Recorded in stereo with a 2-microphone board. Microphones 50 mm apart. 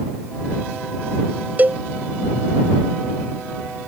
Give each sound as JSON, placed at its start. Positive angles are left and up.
{"t": 1.6, "sound": "a cowbell", "side_deg": -35}